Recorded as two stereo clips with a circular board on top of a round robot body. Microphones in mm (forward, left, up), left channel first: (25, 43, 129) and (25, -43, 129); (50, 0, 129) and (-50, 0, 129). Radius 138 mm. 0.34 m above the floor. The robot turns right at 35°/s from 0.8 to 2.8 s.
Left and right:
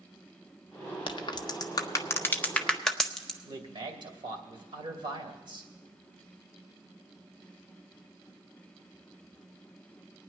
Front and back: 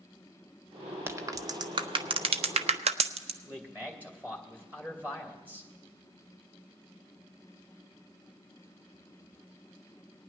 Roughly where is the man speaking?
Right.